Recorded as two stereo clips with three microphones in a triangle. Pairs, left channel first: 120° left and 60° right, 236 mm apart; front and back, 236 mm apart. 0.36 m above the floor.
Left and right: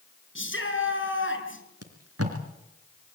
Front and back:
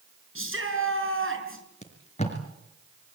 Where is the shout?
155° left, 6 m.